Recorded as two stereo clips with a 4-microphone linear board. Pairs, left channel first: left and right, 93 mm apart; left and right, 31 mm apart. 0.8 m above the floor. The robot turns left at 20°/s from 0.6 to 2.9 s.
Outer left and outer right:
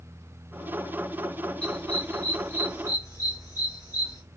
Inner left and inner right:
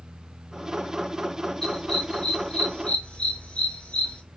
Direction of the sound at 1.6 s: 10° left (ahead or behind).